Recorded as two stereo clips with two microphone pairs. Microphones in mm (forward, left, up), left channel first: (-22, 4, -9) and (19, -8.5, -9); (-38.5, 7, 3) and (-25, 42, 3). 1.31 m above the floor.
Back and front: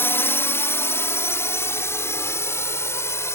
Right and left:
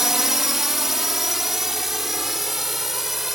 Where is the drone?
150° left; by 3.4 s 155° left.